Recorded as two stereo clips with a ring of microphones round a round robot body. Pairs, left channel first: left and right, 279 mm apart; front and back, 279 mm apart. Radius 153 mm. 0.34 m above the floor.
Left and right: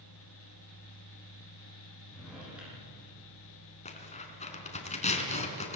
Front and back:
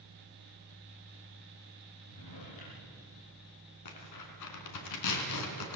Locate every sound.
2.1 s a drawer: 5° right, 8 m
3.9 s tearing paper: 25° left, 3.5 m